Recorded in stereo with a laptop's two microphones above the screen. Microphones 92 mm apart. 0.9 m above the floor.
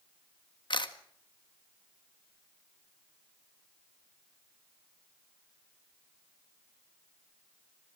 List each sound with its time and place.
0.7 s a camera shutter: 60° left (ahead or behind), 1.6 m